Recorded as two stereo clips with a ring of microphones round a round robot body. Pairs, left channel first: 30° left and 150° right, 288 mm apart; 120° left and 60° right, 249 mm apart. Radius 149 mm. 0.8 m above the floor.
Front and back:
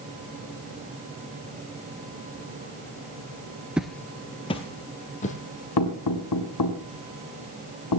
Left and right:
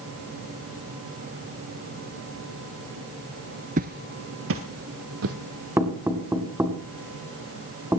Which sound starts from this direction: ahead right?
Footsteps, at 3.8 s.